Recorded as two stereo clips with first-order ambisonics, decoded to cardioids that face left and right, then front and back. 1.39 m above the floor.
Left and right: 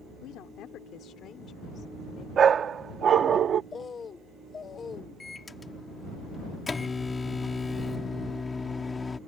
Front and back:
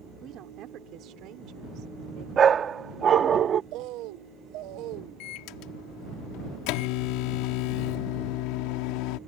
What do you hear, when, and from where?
0.2 s a woman speaking: 130° left; by 2.3 s 150° left
2.4 s a dog barking: 135° right
3.7 s a bird: 160° left
5.2 s a microwave: 15° left